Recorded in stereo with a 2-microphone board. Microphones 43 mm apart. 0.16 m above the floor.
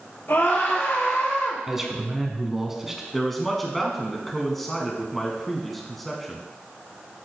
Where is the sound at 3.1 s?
5° left (ahead or behind), 1.0 m.